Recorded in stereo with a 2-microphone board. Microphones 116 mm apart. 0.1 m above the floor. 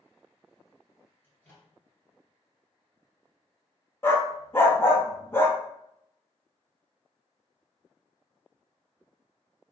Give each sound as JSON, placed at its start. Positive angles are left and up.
{"t": 1.2, "sound": "a microwave", "side_deg": 20, "distance_m": 1.6}
{"t": 4.0, "sound": "a dog barking", "side_deg": 20, "distance_m": 0.6}